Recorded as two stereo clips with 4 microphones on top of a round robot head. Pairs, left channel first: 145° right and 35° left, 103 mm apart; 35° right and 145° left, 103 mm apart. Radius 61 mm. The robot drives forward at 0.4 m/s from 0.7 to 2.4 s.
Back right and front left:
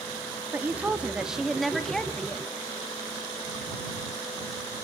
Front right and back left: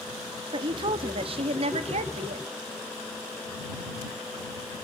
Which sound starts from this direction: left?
A woman speaking, at 0.5 s.